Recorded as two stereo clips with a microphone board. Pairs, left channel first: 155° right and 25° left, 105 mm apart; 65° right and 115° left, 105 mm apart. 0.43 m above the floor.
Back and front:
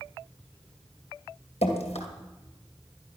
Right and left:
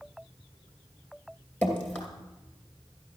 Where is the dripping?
140° right, 2.5 m.